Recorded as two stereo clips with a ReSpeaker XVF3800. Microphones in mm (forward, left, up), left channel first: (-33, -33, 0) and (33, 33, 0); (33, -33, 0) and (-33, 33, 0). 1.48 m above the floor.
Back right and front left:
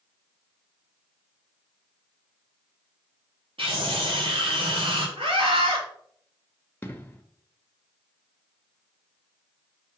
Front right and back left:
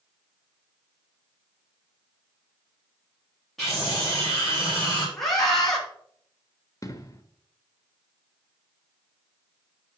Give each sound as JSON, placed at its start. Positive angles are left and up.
{"t": 3.6, "sound": "a scream", "azimuth_deg": 45, "distance_m": 4.0}
{"t": 5.2, "sound": "a scream", "azimuth_deg": 40, "distance_m": 2.5}
{"t": 6.8, "sound": "an explosion", "azimuth_deg": -75, "distance_m": 1.0}